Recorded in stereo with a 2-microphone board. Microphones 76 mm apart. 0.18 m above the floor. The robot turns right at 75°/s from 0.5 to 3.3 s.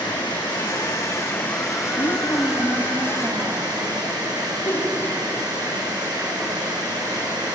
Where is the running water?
85° left, 9 m; by 7.6 s 65° right, 9 m.